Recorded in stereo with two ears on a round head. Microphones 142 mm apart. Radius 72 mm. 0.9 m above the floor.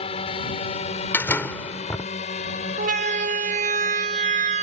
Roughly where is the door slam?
Centre.